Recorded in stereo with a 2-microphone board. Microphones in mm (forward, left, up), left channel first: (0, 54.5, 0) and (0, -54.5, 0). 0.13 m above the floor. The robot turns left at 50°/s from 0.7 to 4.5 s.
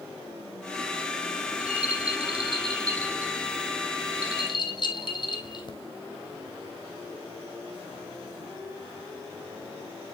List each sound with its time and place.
1.5 s a rattle: 70° right (ahead or behind), 2 m; by 5.7 s 45° left (ahead or behind), 2 m